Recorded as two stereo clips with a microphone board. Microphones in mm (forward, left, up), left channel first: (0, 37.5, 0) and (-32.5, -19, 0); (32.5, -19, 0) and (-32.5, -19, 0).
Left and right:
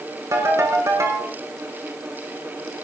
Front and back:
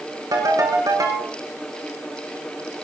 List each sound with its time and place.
0.3 s a ringtone: 155° right, 6 m